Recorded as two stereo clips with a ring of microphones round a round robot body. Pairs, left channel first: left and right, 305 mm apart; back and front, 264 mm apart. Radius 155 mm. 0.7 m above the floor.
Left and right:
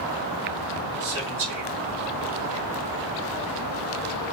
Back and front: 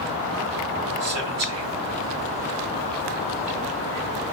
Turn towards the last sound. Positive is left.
turn(degrees=-20)